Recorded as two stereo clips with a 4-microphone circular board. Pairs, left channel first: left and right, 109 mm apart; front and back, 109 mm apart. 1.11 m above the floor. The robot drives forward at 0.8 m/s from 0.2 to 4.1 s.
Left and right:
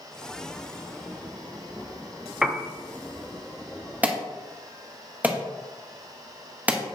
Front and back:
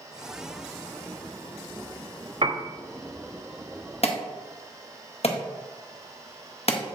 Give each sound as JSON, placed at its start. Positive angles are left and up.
{"t": 2.4, "sound": "a piano", "azimuth_deg": -175, "distance_m": 0.8}
{"t": 4.0, "sound": "an alarm", "azimuth_deg": -15, "distance_m": 1.3}